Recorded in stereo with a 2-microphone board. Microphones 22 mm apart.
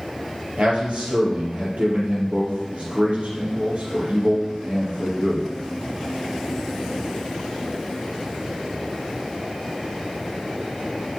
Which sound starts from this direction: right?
A man speaking, at 0.6 s.